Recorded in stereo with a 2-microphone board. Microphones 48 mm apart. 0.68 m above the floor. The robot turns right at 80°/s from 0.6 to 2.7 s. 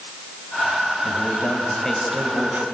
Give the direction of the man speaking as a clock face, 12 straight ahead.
9 o'clock.